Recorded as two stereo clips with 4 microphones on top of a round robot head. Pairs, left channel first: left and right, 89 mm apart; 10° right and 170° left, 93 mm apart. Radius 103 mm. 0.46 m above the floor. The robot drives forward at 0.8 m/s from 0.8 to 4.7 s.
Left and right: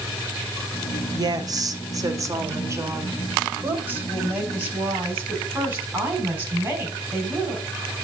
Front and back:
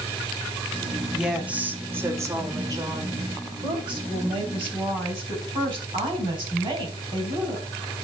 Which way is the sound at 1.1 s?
105° right.